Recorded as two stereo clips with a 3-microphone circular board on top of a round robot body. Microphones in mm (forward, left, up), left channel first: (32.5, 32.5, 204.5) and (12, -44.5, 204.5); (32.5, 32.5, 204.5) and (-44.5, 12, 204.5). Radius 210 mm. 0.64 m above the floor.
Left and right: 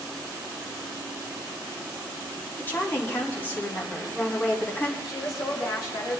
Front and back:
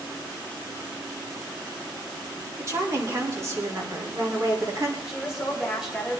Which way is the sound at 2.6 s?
140° left.